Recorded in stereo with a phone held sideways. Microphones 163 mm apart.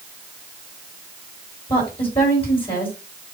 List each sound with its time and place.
1.7 s a woman speaking: 30° left (ahead or behind), 4.5 m